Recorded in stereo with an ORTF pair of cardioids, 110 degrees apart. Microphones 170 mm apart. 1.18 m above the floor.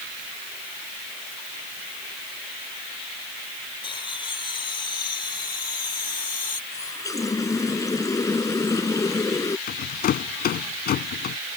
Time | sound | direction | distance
3.8 | laughter | 30° left | ?
6.7 | a running tap | 20° left | ?
9.7 | a rattle | 60° left | ?